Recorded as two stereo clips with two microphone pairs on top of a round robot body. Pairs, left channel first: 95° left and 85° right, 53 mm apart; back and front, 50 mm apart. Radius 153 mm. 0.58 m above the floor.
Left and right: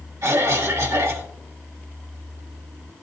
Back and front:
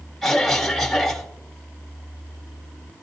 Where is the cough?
85° right, 1.9 m.